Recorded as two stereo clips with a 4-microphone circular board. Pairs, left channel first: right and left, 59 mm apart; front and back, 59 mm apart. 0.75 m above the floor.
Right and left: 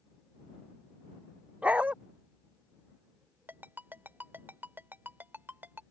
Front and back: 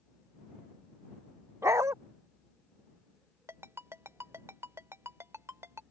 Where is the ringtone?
145° left.